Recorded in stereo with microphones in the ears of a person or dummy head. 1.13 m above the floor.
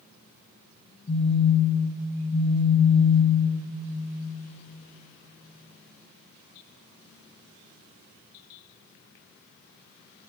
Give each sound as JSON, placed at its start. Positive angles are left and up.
{"t": 1.1, "sound": "a phone buzzing", "side_deg": 40, "distance_m": 1.0}